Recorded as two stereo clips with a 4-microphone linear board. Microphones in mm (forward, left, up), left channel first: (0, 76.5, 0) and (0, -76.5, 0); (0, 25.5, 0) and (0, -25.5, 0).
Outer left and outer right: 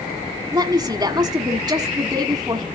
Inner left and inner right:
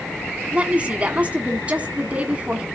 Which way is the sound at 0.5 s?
25° right (ahead or behind).